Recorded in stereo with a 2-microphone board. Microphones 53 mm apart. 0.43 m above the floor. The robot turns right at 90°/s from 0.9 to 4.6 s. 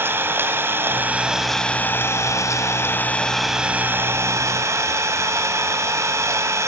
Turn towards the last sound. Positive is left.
turn(degrees=-75)